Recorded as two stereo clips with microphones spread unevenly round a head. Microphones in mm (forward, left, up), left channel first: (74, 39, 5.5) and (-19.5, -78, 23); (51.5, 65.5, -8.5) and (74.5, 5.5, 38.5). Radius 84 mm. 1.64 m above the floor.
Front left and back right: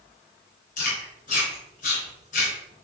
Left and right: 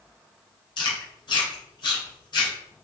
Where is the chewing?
100° left, 3.5 m.